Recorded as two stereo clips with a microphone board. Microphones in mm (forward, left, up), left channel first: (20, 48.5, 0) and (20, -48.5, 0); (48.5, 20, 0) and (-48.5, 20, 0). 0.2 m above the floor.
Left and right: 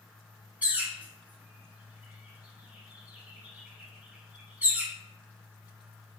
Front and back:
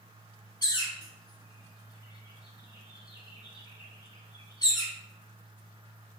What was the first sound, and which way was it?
A bird, 20° right.